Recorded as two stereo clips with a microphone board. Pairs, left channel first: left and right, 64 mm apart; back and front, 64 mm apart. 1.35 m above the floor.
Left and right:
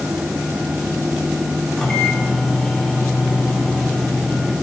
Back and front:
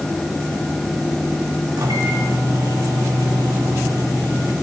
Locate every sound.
1.8 s a microwave: 10° left, 3 m